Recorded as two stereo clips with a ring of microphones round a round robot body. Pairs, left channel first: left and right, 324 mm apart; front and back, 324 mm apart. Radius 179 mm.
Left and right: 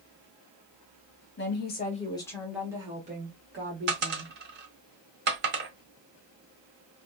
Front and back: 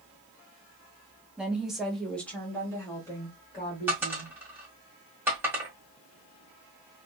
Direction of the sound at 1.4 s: 95° left.